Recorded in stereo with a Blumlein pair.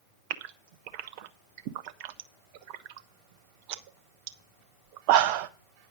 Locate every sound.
0.3 s a gasp: 45° right, 0.6 m